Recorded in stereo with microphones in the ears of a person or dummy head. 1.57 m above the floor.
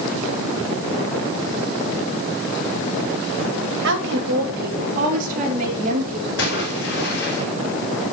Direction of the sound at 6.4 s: 65° left (ahead or behind).